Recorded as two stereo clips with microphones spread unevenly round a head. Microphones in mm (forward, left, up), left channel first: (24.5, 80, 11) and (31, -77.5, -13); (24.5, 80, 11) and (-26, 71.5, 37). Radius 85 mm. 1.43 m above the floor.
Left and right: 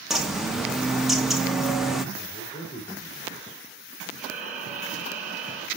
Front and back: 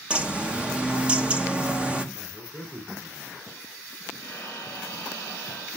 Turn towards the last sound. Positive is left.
turn(degrees=-50)